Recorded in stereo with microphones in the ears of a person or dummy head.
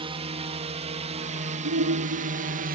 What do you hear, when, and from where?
0.0 s a drone: 30° right (ahead or behind); by 2.8 s 40° right (ahead or behind)
1.6 s a shout: 85° right